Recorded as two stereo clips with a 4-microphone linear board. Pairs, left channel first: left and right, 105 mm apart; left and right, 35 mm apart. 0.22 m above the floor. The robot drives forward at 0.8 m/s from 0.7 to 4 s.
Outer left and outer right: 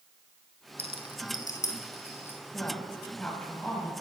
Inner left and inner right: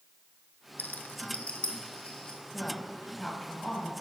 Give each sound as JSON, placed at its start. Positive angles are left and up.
{"t": 0.8, "sound": "a rattle", "side_deg": 70, "distance_m": 0.6}
{"t": 2.5, "sound": "a woman speaking", "side_deg": 15, "distance_m": 1.0}